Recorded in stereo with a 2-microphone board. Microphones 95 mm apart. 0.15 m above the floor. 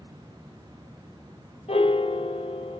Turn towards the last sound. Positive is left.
turn(degrees=80)